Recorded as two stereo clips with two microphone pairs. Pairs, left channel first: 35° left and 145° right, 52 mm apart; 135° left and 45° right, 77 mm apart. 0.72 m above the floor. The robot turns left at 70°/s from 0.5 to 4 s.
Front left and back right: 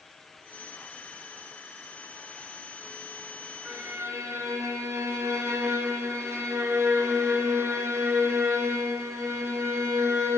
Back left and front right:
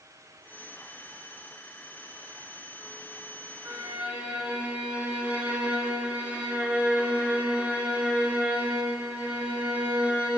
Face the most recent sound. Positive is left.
turn(degrees=-115)